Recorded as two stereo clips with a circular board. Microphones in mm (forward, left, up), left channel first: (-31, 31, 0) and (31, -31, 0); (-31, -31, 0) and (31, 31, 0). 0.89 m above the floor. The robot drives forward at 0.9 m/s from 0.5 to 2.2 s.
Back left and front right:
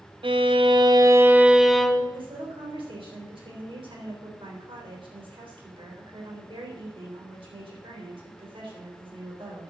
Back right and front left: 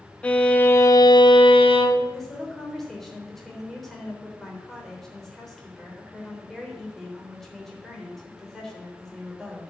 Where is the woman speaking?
50° right, 3.5 m.